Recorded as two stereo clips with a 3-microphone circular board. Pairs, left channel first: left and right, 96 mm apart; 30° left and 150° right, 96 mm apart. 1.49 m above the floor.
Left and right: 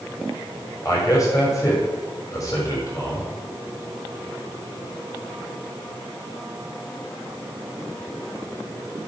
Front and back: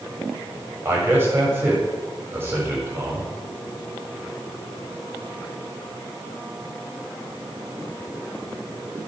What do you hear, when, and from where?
0.8 s a man speaking: 145° left, 7.5 m